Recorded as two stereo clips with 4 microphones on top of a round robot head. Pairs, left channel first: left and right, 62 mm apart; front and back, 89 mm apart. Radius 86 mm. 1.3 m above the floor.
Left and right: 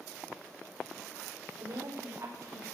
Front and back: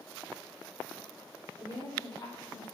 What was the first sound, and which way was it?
A woman speaking, 50° right.